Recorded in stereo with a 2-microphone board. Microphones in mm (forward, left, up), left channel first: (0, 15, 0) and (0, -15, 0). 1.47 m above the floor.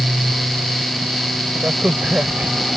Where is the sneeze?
I don't hear a sneeze.